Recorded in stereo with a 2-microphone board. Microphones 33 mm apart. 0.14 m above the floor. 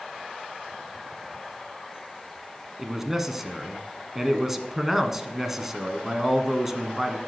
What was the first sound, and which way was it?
A man speaking, 10° right (ahead or behind).